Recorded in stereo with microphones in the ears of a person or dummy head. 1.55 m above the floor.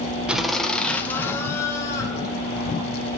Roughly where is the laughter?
Centre.